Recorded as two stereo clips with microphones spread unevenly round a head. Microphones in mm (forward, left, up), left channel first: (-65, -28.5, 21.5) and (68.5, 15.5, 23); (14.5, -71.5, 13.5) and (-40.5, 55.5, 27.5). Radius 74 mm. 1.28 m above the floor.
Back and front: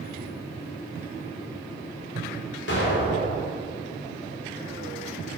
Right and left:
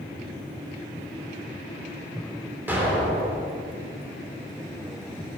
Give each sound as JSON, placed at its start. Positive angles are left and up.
{"t": 2.7, "sound": "an explosion", "azimuth_deg": -170, "distance_m": 3.0}